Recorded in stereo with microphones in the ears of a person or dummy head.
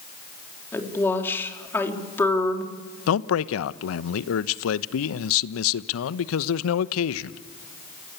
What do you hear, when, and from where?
0.7 s a woman speaking: 10° left (ahead or behind), 3.5 m
3.1 s a man speaking: 80° left, 1.0 m